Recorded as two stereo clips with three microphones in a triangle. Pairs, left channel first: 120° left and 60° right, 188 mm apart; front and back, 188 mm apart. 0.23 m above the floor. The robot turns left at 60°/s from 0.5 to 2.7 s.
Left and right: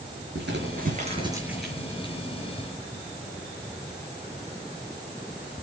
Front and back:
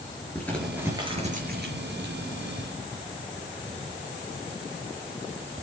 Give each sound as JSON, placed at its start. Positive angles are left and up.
{"t": 0.3, "sound": "crumpling", "azimuth_deg": -80, "distance_m": 5.0}